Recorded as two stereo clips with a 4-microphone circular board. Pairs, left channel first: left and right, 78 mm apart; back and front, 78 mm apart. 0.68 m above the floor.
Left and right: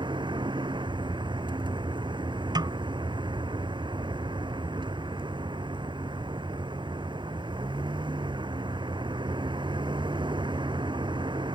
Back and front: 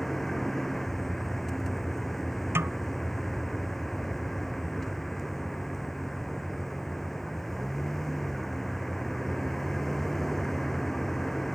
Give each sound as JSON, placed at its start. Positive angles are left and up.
{"t": 0.0, "sound": "a vehicle", "azimuth_deg": -95}
{"t": 2.5, "sound": "a snare drum", "azimuth_deg": -60}